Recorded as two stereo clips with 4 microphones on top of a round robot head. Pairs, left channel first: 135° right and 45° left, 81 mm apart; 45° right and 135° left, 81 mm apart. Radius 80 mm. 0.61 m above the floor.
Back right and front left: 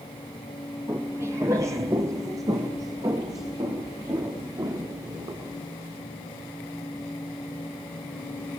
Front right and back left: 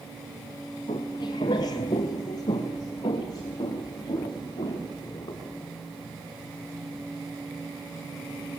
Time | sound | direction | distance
0.9 | footsteps | 20° right | 0.8 m